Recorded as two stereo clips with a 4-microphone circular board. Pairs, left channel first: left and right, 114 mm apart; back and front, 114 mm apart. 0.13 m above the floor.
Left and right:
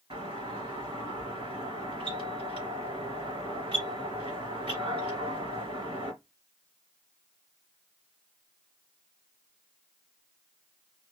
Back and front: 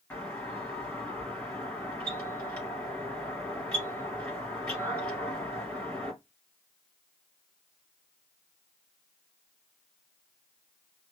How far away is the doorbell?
About 2.0 m.